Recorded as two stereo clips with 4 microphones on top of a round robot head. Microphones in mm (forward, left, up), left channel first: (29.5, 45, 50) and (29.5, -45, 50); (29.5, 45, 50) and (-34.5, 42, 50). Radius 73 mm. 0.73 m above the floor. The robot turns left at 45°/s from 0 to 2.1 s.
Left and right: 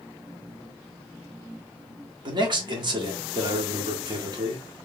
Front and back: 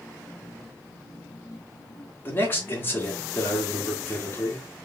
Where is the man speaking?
60° right, 1.8 m.